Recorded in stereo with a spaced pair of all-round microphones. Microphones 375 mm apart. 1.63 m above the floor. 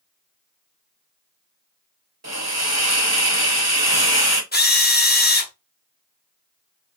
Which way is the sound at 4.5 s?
25° left (ahead or behind).